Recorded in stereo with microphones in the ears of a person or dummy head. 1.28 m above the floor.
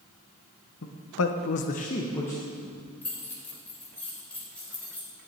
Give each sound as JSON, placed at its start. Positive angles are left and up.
{"t": 0.8, "sound": "a man speaking", "side_deg": 60, "distance_m": 1.3}
{"t": 3.0, "sound": "keys jangling", "side_deg": 5, "distance_m": 4.0}